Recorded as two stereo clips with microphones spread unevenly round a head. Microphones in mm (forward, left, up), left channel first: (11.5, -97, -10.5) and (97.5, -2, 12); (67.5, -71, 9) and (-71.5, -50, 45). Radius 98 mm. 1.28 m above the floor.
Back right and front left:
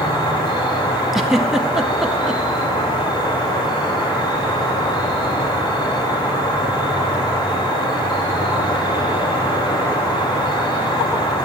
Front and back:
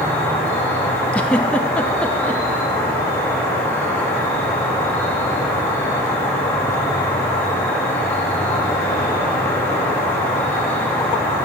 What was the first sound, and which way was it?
An insect, 80° right.